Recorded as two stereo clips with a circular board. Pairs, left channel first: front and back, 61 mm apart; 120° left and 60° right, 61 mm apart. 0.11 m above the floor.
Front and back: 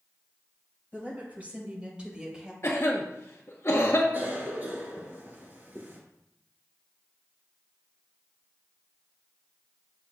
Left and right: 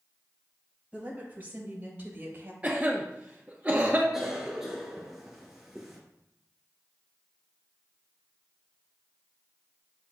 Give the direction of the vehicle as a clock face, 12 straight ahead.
I don't hear a vehicle.